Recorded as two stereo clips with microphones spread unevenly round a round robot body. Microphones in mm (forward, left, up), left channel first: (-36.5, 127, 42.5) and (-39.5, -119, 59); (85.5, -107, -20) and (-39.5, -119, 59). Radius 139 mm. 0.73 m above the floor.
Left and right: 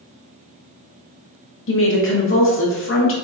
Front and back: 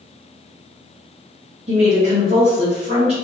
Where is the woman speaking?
110° left, 1.2 m.